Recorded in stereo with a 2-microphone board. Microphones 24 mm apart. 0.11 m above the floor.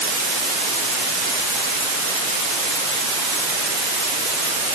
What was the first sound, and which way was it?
Only background noise.